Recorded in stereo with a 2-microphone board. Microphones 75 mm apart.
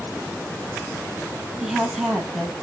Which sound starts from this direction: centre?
A woman speaking, at 1.6 s.